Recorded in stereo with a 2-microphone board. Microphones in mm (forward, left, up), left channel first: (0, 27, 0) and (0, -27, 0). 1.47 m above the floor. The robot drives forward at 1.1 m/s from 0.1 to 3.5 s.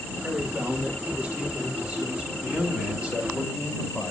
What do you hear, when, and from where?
0.2 s a man speaking: 35° right (ahead or behind), 2.5 m; by 2.3 s 20° right (ahead or behind), 4.5 m
2.4 s a man speaking: 25° right (ahead or behind), 5.5 m; by 4.1 s 20° right (ahead or behind), 6.5 m